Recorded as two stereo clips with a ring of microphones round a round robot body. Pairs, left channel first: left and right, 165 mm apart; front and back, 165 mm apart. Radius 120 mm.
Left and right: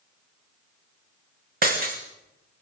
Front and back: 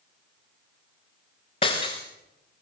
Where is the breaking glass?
65° right, 4 m.